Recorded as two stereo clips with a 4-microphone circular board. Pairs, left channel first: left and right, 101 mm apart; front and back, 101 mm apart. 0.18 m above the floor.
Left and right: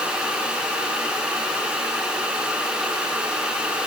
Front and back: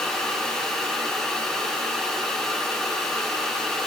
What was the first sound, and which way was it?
Only background noise.